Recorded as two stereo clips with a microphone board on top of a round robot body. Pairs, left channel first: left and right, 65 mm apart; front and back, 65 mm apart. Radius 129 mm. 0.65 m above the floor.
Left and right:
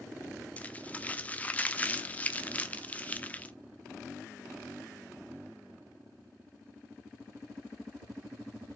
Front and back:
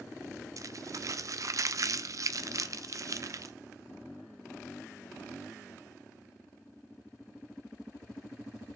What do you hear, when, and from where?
0.6 s crumpling: 155° left, 0.7 m